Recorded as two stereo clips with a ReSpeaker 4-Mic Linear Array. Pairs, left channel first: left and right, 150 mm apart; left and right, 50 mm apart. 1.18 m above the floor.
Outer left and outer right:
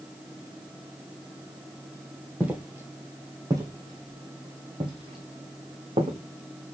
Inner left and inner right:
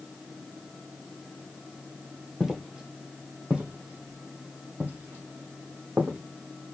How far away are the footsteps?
About 2 m.